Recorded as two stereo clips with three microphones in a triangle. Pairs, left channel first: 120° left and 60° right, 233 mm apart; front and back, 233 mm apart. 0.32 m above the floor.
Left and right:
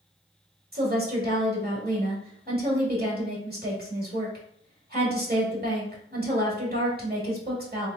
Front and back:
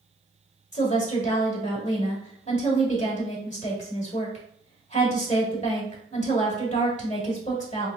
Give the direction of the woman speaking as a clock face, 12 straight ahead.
1 o'clock.